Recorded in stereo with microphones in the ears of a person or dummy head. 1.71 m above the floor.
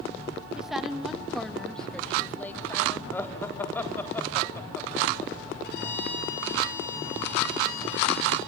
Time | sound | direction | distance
0.6 | a woman speaking | 10° right (ahead or behind) | 2.5 m
3.1 | laughter | 15° left (ahead or behind) | 3.5 m
5.6 | a violin | 65° left (ahead or behind) | 9.5 m